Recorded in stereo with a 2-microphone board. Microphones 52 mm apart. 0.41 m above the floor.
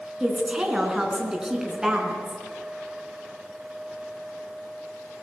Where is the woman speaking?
10° right (ahead or behind), 4.5 m.